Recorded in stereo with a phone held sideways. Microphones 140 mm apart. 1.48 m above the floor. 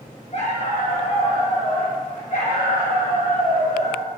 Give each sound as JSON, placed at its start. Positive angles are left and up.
{"t": 0.3, "sound": "a dog barking", "side_deg": 50, "distance_m": 3.5}